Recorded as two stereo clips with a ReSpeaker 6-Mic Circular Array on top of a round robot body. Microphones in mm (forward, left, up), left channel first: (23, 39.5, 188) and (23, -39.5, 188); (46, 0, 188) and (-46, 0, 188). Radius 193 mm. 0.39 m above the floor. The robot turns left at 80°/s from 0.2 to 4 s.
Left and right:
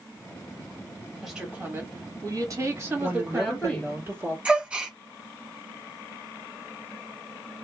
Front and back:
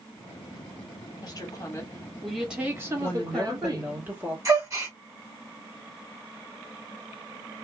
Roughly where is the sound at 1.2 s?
Ahead.